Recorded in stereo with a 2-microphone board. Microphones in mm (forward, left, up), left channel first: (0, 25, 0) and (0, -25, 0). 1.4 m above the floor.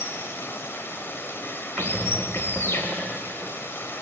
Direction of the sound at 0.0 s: 50° left (ahead or behind).